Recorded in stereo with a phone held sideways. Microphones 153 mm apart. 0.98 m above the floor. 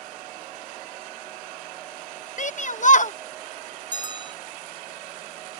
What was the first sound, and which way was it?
A shout, 55° left (ahead or behind).